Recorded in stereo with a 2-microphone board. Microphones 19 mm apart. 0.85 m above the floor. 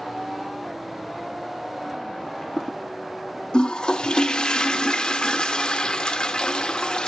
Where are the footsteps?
35° left (ahead or behind), 1.2 m.